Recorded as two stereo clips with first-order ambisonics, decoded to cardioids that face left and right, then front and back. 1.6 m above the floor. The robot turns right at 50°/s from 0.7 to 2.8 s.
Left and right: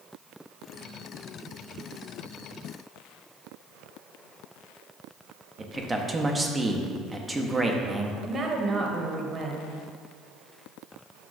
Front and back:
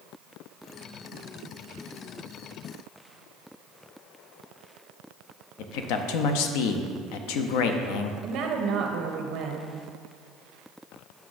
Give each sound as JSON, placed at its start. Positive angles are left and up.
{"t": 5.6, "sound": "a man speaking", "azimuth_deg": -5, "distance_m": 0.5}
{"t": 8.2, "sound": "a woman speaking", "azimuth_deg": -160, "distance_m": 0.7}